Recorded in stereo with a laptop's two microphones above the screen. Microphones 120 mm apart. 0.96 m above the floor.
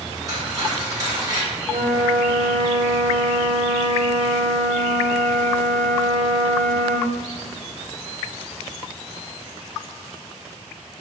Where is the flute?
85° right, 0.6 m.